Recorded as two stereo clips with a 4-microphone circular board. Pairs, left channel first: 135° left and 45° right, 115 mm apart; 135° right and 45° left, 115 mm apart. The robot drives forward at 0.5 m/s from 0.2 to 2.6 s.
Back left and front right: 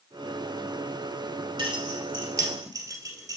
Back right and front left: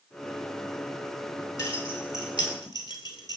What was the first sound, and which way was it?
Keys jangling, 80° right.